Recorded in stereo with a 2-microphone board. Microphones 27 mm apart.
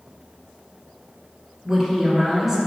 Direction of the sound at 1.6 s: 20° right (ahead or behind).